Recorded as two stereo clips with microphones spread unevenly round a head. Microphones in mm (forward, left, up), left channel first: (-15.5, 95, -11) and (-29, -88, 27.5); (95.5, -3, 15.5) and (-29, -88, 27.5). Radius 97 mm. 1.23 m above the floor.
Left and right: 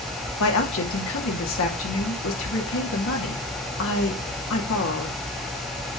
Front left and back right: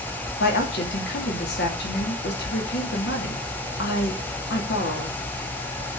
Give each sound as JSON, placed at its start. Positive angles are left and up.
{"t": 0.4, "sound": "a woman speaking", "azimuth_deg": 70, "distance_m": 2.5}